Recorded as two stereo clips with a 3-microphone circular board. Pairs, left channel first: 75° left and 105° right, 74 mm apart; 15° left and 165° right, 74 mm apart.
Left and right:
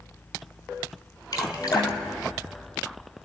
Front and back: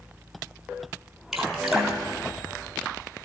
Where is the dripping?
110° left, 1.6 m.